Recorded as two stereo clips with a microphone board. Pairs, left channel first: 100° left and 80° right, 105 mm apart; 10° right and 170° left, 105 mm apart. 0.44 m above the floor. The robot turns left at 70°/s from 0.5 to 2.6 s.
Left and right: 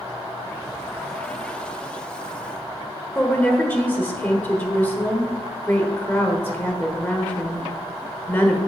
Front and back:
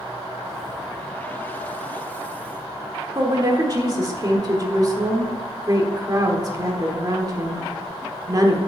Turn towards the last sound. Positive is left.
turn(degrees=160)